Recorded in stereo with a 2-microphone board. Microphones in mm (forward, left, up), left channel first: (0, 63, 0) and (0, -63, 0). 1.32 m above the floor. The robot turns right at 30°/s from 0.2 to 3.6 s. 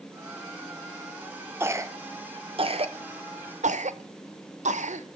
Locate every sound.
1.6 s a cough: 20° right (ahead or behind), 0.7 m; by 5.1 s 70° right (ahead or behind), 0.7 m